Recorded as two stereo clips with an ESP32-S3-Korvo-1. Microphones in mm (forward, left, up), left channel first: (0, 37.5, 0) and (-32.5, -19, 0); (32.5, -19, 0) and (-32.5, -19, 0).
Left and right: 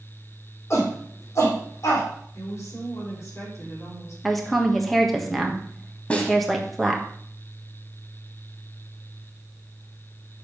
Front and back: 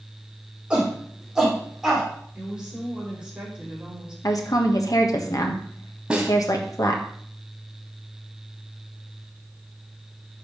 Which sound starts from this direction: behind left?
A snare drum, at 6.1 s.